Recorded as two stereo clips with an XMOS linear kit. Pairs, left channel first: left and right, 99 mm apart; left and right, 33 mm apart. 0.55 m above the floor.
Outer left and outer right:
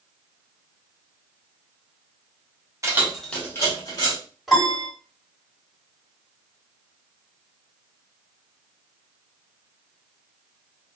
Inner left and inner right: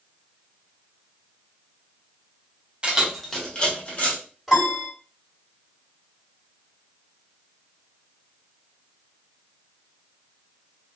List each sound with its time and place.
2.8 s keys jangling: 30° right (ahead or behind), 0.7 m; by 4.2 s 45° left (ahead or behind), 1.6 m
4.5 s a piano: 5° right (ahead or behind), 1.6 m